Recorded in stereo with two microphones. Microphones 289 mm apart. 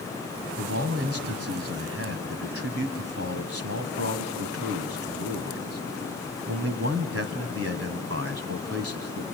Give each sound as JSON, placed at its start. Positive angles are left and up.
{"t": 0.6, "sound": "a man speaking", "side_deg": -55, "distance_m": 1.8}